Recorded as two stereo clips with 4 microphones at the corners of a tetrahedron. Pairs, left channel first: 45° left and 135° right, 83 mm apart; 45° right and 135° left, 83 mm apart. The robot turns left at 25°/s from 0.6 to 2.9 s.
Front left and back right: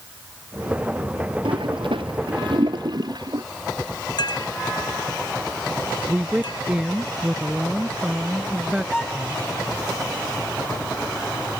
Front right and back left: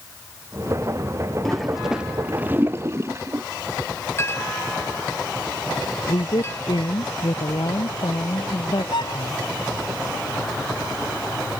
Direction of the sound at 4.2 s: 15° left.